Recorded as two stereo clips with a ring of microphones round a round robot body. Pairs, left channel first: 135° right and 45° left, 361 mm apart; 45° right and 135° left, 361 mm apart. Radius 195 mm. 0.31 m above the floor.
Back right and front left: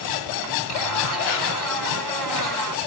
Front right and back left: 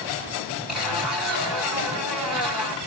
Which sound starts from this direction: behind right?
A zipper, at 0.7 s.